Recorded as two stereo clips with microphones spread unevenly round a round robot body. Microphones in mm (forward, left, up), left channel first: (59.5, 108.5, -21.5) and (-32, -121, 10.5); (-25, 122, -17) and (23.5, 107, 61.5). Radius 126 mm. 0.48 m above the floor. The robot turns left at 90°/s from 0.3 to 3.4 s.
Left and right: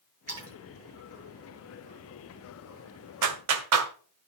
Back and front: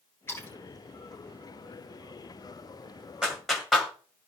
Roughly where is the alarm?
I don't hear an alarm.